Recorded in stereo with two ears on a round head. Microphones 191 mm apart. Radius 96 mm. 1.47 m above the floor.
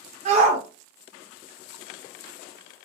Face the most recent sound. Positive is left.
turn(degrees=-35)  # may be behind; listen again after turning